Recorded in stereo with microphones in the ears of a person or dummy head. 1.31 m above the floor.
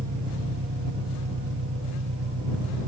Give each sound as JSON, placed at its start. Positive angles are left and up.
{"t": 0.0, "sound": "an engine running", "side_deg": -70}